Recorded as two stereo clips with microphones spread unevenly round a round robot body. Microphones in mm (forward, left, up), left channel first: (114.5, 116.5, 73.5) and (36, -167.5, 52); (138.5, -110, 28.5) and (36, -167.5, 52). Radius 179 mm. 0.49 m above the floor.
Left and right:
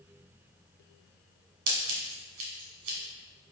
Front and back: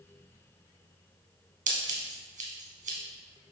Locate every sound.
1.7 s scissors: 145° right, 1.2 m